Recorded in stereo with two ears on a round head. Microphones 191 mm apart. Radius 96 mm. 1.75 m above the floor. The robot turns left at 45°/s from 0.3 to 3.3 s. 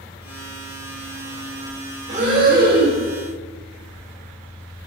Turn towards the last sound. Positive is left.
turn(degrees=-100)